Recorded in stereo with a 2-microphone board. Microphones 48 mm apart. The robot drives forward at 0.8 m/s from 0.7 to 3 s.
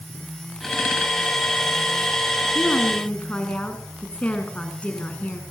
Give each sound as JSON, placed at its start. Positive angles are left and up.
{"t": 2.5, "sound": "a woman speaking", "side_deg": 30, "distance_m": 3.0}